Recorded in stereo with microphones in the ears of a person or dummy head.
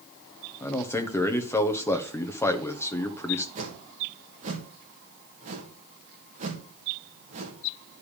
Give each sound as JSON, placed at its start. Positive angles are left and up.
{"t": 0.6, "sound": "a man speaking", "side_deg": 15, "distance_m": 1.3}
{"t": 3.5, "sound": "a whoosh", "side_deg": -40, "distance_m": 1.9}